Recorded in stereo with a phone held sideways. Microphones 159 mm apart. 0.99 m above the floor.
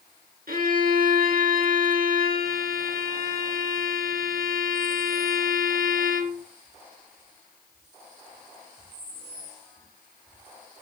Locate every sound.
0.5 s a violin: 75° right (ahead or behind), 4.5 m